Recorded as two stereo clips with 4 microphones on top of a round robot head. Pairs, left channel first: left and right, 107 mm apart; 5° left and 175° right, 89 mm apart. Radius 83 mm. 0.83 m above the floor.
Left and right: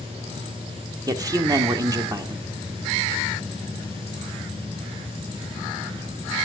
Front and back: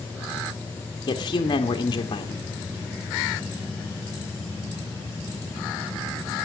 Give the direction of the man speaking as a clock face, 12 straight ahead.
1 o'clock.